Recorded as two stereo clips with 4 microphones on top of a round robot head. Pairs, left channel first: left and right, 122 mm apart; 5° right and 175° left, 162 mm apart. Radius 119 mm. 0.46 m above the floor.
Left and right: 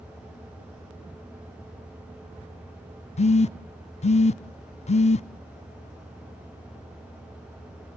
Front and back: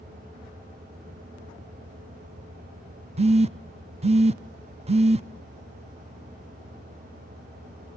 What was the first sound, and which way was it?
A phone buzzing, 125° left.